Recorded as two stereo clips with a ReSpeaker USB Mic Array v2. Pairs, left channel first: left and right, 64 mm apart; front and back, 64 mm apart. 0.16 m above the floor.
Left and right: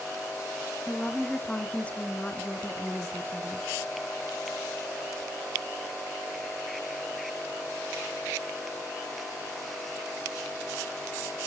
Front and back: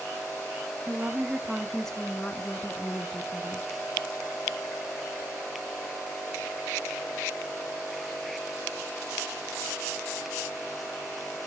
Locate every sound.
0.9 s a woman speaking: 155° left, 1.2 m; by 3.7 s 20° left, 1.9 m